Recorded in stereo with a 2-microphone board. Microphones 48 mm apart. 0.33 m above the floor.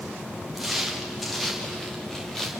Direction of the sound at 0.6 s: 5° right (ahead or behind).